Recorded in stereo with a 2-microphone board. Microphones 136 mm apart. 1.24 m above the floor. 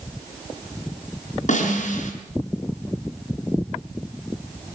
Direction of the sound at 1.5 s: 65° left (ahead or behind).